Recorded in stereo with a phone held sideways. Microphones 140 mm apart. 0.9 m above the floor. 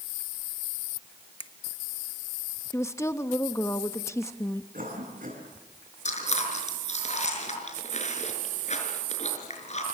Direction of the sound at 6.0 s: 55° left (ahead or behind).